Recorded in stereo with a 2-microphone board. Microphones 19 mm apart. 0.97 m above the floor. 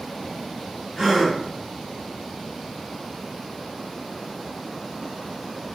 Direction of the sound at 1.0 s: 40° right (ahead or behind).